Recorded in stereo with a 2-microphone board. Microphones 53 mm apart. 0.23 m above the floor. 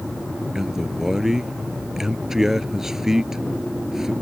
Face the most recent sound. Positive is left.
turn(degrees=-10)  # may be behind; listen again after turning